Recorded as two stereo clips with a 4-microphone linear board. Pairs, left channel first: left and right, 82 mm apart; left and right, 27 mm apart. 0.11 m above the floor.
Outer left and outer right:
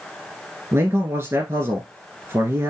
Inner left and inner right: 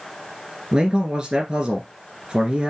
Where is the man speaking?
30° right (ahead or behind), 1.4 m.